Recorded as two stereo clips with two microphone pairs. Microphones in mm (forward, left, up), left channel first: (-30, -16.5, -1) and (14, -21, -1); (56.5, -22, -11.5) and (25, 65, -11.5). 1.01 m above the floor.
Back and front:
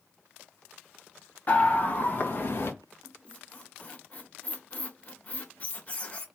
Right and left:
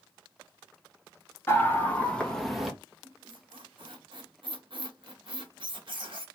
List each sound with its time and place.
1.5 s a scream: 135° right, 1.7 m; by 2.7 s 165° right, 1.3 m
3.0 s a squeak: 125° left, 0.9 m